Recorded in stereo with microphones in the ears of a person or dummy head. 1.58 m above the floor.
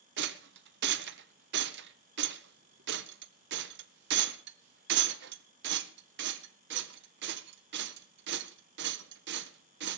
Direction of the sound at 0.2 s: 65° right (ahead or behind).